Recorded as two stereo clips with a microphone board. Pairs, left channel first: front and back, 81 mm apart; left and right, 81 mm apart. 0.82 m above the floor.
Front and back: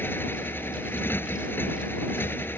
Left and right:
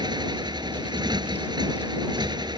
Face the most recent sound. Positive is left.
turn(degrees=-65)